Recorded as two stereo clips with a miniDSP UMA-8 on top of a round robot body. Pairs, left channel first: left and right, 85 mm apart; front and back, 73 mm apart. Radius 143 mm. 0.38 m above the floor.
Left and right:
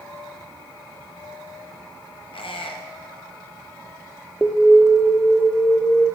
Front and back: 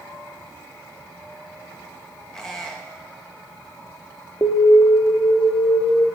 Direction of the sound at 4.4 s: Straight ahead.